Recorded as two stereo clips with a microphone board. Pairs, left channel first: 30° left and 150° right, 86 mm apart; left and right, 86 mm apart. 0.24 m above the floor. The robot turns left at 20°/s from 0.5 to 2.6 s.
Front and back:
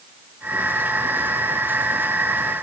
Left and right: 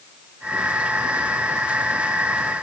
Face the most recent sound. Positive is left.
No sound to turn to.